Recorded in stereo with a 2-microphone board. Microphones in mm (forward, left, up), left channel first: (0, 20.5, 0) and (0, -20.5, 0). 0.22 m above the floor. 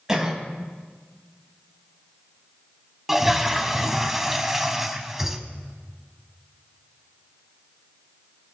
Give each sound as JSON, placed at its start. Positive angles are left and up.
{"t": 0.1, "sound": "a cough", "side_deg": -15, "distance_m": 1.7}
{"t": 3.1, "sound": "a toilet flushing", "side_deg": -5, "distance_m": 0.7}